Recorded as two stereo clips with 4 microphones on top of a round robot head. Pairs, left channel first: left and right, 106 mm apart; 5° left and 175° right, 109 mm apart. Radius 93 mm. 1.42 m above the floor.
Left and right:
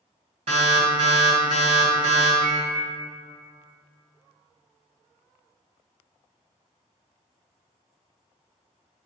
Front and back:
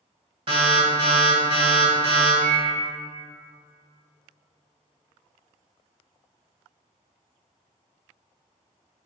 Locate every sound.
0.5 s an alarm: 130° right, 1.8 m
2.4 s a microwave: 145° right, 0.7 m